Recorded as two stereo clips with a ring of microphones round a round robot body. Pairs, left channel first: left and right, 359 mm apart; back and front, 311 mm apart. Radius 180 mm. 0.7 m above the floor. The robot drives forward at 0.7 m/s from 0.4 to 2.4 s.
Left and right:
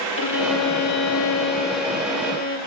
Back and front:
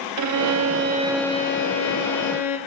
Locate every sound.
0.2 s a violin: 35° left, 0.7 m; by 2.6 s 155° left, 1.0 m